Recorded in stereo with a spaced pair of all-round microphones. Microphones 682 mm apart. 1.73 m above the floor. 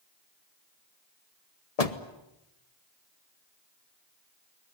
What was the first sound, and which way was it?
A door slam, 60° left (ahead or behind).